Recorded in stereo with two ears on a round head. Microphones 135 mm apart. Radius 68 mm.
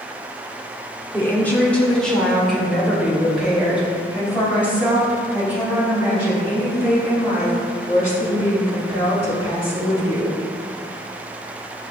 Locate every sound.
1.1 s a woman speaking: 15° left (ahead or behind), 1.3 m; by 10.4 s 15° right (ahead or behind), 6 m